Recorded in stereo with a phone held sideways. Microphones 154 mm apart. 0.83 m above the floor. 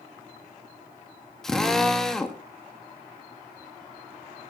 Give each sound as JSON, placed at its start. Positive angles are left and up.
{"t": 1.4, "sound": "a drill", "side_deg": 5, "distance_m": 1.5}